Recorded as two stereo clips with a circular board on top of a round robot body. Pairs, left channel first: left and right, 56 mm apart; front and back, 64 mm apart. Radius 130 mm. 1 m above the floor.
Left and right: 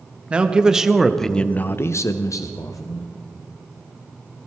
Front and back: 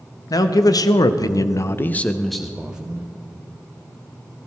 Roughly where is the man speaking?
Ahead.